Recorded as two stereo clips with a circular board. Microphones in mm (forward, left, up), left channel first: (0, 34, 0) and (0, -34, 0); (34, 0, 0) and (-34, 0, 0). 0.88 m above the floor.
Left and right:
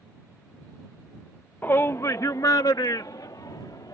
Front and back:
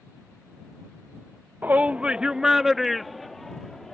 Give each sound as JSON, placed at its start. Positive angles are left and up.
{"t": 1.6, "sound": "a shout", "azimuth_deg": 135}